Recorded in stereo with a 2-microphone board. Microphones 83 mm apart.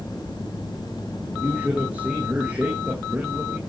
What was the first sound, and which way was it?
A man speaking, 20° right (ahead or behind).